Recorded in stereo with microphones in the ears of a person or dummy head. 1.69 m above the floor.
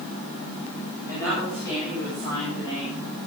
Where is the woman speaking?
15° left (ahead or behind), 9.5 m; by 3.0 s 20° left (ahead or behind), 11 m.